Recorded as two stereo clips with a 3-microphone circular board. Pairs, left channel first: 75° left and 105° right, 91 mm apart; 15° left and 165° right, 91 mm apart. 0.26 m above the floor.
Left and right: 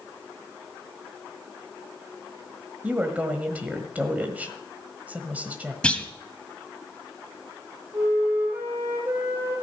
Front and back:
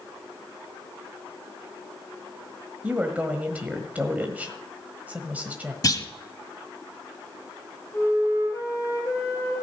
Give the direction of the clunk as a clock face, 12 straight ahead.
12 o'clock.